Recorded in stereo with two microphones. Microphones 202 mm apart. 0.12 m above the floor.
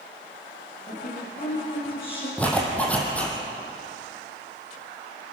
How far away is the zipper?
About 4 m.